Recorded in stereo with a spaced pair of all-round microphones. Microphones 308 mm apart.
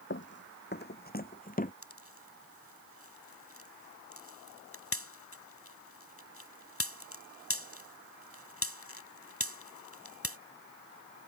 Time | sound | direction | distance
0.1 | running footsteps | 40° left (ahead or behind) | ?
1.8 | a pop | 45° left (ahead or behind) | ?